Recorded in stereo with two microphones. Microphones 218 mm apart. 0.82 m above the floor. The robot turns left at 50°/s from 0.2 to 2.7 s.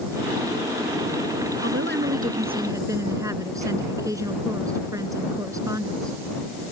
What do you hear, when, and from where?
1.6 s a woman speaking: 110° right; by 6.6 s 165° right